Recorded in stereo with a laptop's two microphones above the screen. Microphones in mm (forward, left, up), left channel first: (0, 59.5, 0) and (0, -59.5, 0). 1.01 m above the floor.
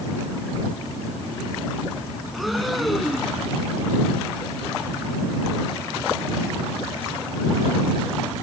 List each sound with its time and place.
2.3 s breathing: centre (ahead or behind)